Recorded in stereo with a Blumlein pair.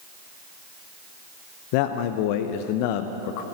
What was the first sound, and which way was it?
A man speaking, 45° left.